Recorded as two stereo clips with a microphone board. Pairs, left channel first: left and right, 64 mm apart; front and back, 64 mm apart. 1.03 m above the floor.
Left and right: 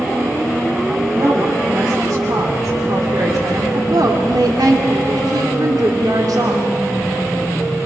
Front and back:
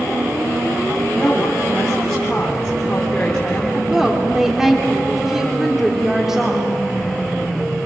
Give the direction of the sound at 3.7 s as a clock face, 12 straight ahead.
3 o'clock.